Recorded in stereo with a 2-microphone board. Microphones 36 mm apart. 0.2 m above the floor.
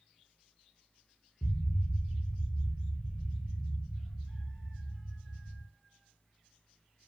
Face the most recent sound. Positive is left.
turn(degrees=50)  # may be behind; listen again after turning